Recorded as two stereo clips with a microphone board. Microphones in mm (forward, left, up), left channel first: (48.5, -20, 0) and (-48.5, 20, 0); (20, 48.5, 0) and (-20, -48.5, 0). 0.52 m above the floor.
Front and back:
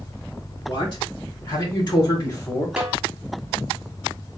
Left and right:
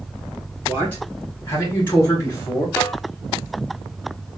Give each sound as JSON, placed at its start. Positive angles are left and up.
{"t": 0.7, "sound": "a man speaking", "azimuth_deg": 0, "distance_m": 2.5}
{"t": 2.8, "sound": "a snare drum", "azimuth_deg": 95, "distance_m": 1.1}